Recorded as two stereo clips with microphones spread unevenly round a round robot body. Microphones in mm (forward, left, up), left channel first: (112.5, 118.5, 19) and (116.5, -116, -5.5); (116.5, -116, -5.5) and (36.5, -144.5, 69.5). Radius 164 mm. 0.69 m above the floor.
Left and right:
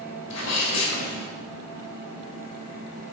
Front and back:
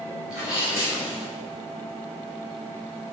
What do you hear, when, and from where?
0.3 s a sneeze: 100° left, 4 m